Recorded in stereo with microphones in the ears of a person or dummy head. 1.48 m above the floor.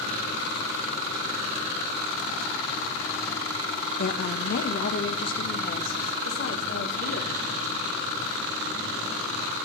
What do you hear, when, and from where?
4.0 s a woman speaking: 50° left (ahead or behind), 1.0 m; by 7.7 s 70° left (ahead or behind), 3 m